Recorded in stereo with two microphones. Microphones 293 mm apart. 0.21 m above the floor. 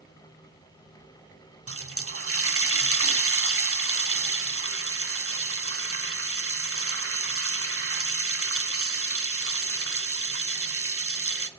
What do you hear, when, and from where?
1.7 s a running tap: 50° right (ahead or behind), 1.0 m